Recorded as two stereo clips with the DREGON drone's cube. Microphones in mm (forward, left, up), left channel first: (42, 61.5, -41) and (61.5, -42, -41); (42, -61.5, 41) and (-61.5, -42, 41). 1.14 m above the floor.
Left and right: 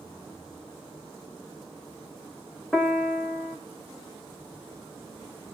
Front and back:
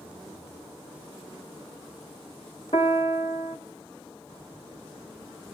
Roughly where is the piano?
Ahead.